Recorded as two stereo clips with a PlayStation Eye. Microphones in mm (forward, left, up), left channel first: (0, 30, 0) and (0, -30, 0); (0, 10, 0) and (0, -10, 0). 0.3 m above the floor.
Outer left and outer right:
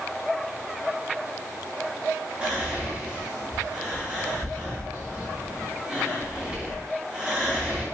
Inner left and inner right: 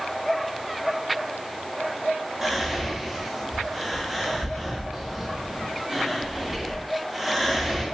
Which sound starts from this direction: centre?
Whispering, at 2.4 s.